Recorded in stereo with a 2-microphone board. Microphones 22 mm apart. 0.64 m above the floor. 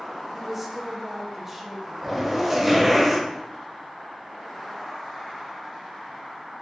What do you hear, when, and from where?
0.3 s a woman speaking: 15° right (ahead or behind), 0.7 m
2.0 s a zipper: 10° right (ahead or behind), 0.8 m